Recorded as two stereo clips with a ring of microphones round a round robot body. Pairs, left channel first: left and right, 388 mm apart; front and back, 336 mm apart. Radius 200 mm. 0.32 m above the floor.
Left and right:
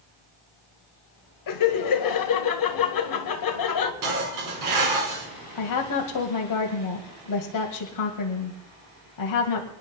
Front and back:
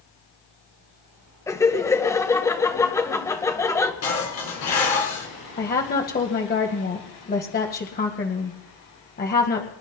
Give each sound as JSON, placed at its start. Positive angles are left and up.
{"t": 1.5, "sound": "laughter", "azimuth_deg": 80, "distance_m": 1.9}
{"t": 4.0, "sound": "dishes clattering", "azimuth_deg": -50, "distance_m": 3.5}
{"t": 5.6, "sound": "a woman speaking", "azimuth_deg": 60, "distance_m": 2.0}